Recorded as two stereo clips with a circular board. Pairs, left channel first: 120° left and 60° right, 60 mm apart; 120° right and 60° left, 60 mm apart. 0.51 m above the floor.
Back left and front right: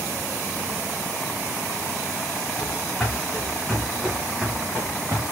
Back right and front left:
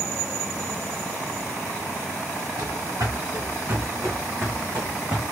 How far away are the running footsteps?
About 2.5 m.